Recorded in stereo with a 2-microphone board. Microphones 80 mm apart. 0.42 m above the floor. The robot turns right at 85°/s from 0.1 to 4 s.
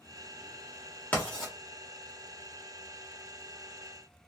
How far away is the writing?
About 1.3 m.